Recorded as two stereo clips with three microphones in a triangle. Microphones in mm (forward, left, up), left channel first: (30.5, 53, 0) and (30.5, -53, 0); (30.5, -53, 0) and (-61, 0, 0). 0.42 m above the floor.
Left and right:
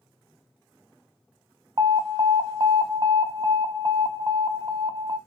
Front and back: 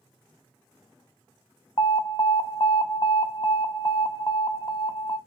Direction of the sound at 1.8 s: 60° right.